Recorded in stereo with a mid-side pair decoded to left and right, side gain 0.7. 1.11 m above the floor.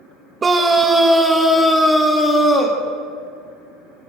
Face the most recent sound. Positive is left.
turn(degrees=10)